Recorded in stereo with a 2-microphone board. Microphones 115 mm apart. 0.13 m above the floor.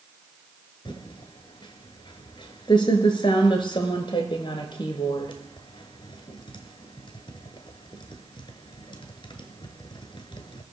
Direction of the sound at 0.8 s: 45° left (ahead or behind).